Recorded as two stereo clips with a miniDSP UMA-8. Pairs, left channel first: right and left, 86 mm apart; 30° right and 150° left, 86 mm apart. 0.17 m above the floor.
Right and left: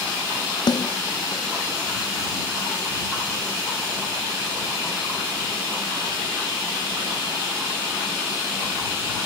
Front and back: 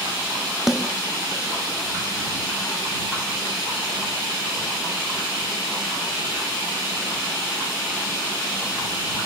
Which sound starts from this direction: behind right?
A snare drum, at 0.7 s.